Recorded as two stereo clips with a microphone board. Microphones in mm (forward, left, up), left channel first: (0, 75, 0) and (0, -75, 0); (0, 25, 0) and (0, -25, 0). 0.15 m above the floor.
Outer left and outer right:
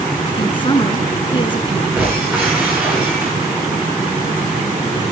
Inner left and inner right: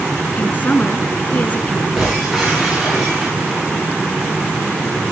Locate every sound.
0.4 s a woman speaking: 35° left (ahead or behind), 1.8 m
2.0 s breaking glass: 10° right (ahead or behind), 9 m